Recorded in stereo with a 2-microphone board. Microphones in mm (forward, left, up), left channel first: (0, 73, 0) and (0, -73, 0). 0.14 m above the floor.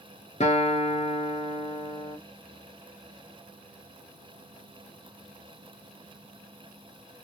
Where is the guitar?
50° left (ahead or behind), 1.0 m.